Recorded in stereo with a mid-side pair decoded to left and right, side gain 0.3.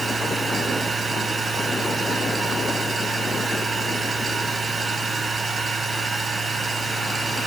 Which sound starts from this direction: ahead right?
A machine running, at 0.0 s.